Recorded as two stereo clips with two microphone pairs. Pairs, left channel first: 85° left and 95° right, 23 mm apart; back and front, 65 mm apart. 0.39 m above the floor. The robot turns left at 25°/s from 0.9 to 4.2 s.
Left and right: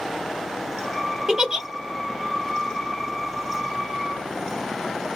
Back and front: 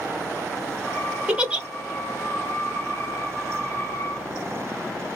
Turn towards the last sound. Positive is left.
turn(degrees=-120)